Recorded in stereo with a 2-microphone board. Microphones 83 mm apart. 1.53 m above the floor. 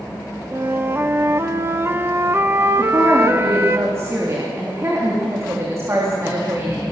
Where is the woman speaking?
35° right (ahead or behind), 3.5 m.